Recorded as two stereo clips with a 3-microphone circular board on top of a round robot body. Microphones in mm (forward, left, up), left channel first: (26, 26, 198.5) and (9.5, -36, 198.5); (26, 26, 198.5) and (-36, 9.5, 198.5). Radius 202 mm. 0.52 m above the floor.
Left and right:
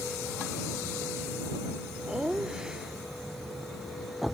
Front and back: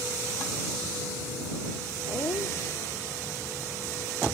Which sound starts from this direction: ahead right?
Laughter, at 2.1 s.